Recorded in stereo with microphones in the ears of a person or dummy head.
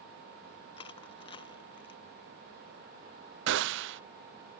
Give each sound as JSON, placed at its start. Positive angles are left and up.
{"t": 0.8, "sound": "crushing", "side_deg": 30}
{"t": 3.5, "sound": "a gunshot", "side_deg": -65}